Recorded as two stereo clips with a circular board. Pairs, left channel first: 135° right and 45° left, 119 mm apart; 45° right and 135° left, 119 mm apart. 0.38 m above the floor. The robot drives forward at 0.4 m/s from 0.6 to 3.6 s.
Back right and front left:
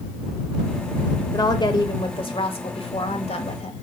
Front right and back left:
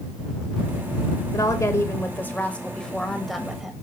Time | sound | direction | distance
1.3 | a woman speaking | 95° right | 1.2 m